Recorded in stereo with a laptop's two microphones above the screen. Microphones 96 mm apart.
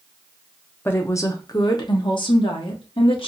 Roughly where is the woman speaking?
Left.